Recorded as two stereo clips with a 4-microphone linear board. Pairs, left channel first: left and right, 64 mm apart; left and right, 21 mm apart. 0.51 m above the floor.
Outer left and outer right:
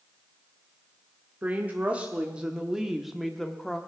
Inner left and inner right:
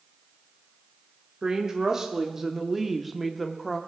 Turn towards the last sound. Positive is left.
turn(degrees=10)  # may be behind; listen again after turning